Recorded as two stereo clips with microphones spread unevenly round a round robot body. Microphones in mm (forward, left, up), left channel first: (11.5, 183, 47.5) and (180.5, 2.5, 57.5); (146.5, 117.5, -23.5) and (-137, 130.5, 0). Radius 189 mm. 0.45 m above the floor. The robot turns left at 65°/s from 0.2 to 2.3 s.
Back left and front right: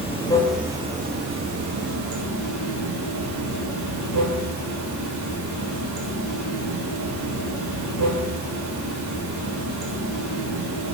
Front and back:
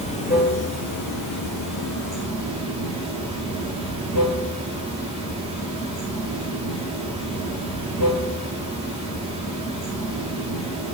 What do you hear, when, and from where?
0.0 s running water: 65° left, 5 m; by 10.9 s 75° right, 5 m